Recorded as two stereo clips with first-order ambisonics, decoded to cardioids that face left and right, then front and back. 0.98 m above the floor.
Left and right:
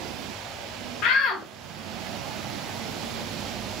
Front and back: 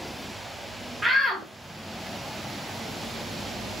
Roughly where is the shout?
Left.